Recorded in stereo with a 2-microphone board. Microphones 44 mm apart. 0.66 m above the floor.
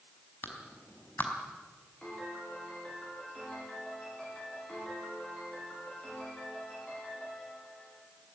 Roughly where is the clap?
Left.